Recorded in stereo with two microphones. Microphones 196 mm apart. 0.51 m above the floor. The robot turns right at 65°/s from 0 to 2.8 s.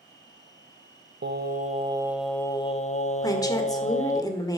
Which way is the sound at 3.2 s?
20° left (ahead or behind).